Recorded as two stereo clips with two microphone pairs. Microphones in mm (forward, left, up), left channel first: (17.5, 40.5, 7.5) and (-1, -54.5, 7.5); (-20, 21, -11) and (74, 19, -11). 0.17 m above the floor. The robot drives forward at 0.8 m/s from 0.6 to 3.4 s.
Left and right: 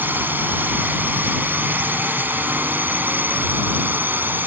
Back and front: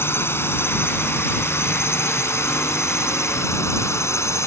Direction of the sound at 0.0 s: 150° right.